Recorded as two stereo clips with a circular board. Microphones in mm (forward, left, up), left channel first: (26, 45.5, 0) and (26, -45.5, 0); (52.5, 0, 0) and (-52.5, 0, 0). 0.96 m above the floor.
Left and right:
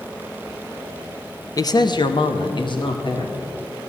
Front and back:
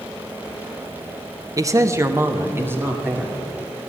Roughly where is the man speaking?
Behind left.